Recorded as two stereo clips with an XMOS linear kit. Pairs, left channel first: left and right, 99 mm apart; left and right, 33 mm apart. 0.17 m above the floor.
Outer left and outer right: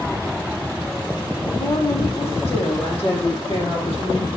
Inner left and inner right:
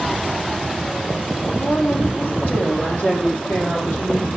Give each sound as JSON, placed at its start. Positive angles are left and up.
{"t": 1.5, "sound": "a woman speaking", "side_deg": 80, "distance_m": 8.0}